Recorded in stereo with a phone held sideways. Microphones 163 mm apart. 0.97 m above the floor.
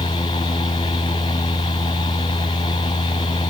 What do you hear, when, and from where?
0.0 s a fan: 25° left (ahead or behind), 1.8 m